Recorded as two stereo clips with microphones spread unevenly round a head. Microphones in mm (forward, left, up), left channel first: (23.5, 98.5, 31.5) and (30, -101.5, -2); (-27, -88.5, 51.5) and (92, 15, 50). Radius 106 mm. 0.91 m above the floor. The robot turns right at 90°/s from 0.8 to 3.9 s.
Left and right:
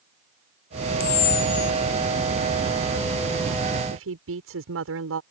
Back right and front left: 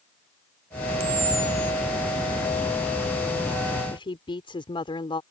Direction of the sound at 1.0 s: 95° left.